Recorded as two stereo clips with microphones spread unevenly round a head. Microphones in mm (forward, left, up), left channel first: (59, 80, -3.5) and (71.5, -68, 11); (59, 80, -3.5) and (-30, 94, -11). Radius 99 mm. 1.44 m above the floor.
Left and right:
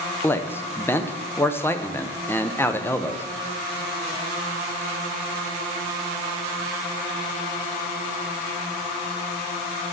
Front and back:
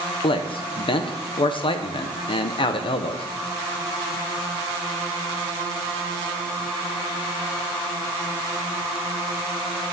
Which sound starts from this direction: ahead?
A man speaking, at 0.2 s.